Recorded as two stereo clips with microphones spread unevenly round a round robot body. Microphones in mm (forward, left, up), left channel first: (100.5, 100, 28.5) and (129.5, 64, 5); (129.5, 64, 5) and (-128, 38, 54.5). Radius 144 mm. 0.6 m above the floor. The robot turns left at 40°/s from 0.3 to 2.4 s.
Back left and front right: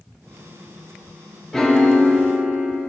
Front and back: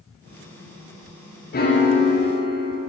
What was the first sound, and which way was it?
A piano, 25° left.